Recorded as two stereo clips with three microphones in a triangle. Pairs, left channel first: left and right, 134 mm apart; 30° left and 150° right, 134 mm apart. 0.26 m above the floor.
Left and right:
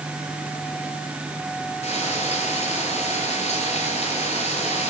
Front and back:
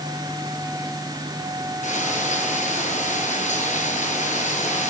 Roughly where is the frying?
Ahead left.